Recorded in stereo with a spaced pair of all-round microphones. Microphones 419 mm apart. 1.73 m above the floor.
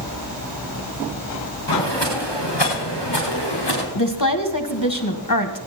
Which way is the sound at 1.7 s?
75° left (ahead or behind).